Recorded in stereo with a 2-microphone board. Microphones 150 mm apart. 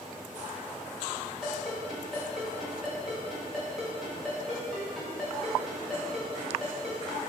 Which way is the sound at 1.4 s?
Centre (ahead or behind).